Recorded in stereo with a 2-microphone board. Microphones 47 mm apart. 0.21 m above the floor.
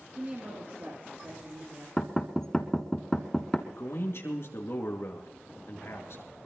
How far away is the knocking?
About 1.2 m.